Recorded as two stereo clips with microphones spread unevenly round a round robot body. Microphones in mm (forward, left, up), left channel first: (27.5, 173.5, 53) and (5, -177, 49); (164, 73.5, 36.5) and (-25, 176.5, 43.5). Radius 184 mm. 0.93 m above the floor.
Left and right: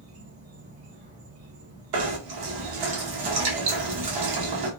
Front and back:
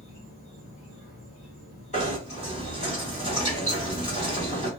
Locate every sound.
0.0 s an insect: 45° right, 1.2 m
1.9 s knocking: 95° right, 1.0 m